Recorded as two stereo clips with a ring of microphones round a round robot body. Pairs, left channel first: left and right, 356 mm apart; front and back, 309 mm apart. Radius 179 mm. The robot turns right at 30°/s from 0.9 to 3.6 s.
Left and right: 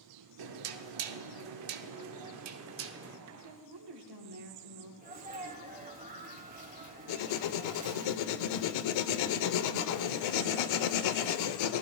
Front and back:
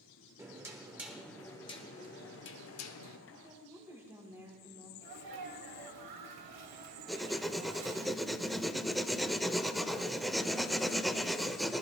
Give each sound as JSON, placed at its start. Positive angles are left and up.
{"t": 0.4, "sound": "knocking", "azimuth_deg": -100, "distance_m": 0.8}
{"t": 3.3, "sound": "a woman speaking", "azimuth_deg": -110, "distance_m": 2.5}
{"t": 5.0, "sound": "a sneeze", "azimuth_deg": -160, "distance_m": 2.5}
{"t": 7.1, "sound": "writing", "azimuth_deg": 90, "distance_m": 0.8}